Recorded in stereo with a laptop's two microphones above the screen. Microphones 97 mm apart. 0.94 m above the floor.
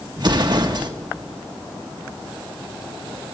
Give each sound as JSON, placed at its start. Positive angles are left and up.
{"t": 0.2, "sound": "an explosion", "side_deg": -50, "distance_m": 1.5}